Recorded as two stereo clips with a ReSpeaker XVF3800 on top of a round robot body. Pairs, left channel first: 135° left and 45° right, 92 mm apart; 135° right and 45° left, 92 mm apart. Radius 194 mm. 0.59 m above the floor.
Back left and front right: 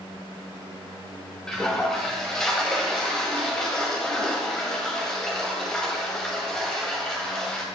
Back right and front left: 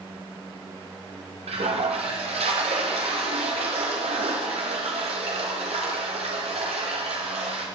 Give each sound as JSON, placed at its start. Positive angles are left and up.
{"t": 1.5, "sound": "a toilet flushing", "azimuth_deg": 50, "distance_m": 1.1}